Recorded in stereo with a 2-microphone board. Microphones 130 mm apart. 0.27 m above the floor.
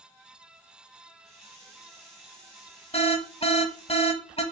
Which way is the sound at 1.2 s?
5° left (ahead or behind).